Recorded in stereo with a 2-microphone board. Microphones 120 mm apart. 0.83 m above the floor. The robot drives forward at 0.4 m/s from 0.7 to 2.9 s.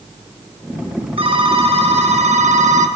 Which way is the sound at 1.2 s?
45° right (ahead or behind).